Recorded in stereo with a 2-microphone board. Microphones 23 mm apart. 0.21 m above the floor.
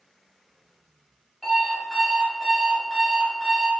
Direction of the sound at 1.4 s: 5° left (ahead or behind).